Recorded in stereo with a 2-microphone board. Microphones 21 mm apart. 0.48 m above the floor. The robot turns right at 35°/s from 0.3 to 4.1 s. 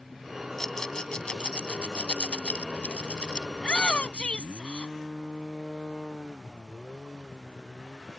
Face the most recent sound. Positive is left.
turn(degrees=70)  # may be behind; listen again after turning